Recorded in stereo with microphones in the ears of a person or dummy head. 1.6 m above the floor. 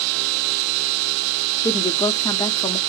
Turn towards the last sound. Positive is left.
turn(degrees=20)  # may be behind; listen again after turning